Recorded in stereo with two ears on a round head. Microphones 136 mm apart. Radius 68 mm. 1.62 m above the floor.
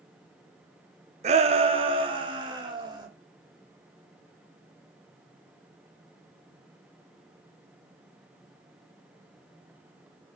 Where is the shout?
45° right (ahead or behind), 0.8 m; by 3.1 s 30° right (ahead or behind), 2 m.